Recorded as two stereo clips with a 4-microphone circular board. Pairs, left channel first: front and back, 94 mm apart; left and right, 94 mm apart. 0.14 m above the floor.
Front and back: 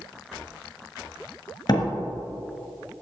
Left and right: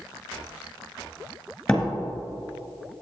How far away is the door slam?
About 1.7 m.